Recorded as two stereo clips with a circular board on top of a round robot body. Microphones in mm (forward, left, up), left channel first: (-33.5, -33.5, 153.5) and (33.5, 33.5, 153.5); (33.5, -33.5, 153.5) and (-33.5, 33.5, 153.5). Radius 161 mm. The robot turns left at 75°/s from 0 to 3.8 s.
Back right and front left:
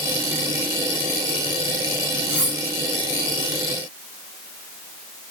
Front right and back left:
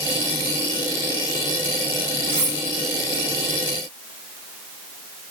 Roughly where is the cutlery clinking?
Behind left.